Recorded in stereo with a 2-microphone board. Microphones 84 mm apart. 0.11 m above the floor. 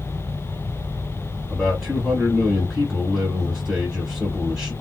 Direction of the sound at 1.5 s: 5° right (ahead or behind).